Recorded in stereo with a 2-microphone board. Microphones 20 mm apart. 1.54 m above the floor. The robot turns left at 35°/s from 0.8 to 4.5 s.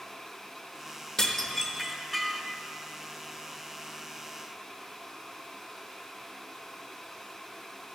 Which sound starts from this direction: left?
Dishes clattering, at 1.2 s.